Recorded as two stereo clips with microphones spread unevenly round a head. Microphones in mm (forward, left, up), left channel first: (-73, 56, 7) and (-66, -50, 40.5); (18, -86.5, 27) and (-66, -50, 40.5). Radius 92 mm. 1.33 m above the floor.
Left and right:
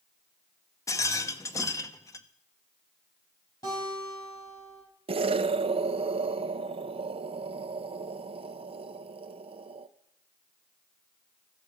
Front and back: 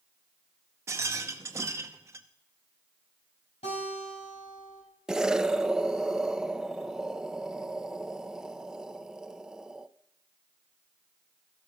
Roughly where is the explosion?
Behind right.